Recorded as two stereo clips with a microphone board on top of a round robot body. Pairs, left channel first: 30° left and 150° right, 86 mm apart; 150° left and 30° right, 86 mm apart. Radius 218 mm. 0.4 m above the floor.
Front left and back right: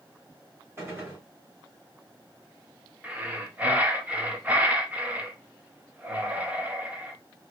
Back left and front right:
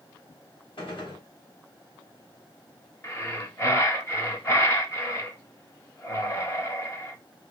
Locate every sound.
0.8 s a gunshot: 150° left, 3.5 m
3.0 s breathing: 155° left, 1.3 m